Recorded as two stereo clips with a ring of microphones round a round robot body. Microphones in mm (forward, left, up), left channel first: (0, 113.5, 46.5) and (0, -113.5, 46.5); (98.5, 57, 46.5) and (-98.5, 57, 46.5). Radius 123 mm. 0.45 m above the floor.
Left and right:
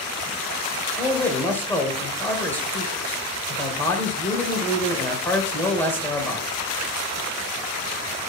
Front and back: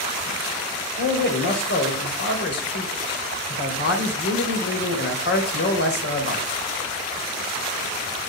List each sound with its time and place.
1.0 s a man speaking: 10° left, 2.5 m